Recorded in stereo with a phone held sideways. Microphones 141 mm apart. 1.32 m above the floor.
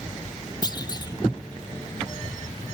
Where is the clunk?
30° left (ahead or behind).